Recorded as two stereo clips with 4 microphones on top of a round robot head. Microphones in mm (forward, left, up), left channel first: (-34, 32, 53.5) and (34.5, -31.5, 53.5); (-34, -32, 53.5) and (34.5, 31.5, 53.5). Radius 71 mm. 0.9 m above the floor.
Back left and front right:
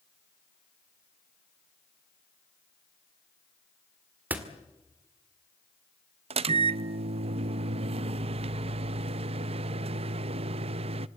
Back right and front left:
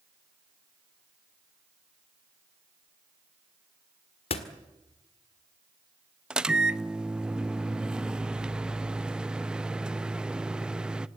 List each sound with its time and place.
4.3 s a door slam: 115° right, 1.8 m
6.3 s a microwave: 40° right, 0.6 m